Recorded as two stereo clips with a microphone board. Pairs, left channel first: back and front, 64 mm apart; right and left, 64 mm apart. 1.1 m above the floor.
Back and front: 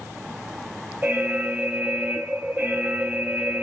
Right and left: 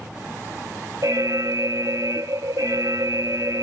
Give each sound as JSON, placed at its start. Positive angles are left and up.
{"t": 1.0, "sound": "an alarm", "azimuth_deg": 60, "distance_m": 1.2}